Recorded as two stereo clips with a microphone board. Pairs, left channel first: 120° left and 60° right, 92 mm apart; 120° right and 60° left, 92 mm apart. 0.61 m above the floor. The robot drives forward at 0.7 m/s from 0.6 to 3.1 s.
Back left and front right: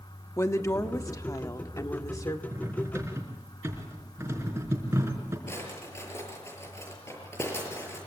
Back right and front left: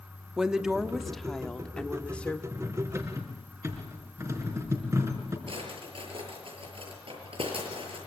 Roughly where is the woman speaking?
Behind left.